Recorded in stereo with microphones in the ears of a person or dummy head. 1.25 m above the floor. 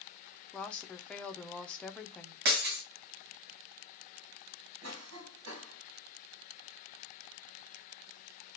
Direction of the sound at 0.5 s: Centre (ahead or behind).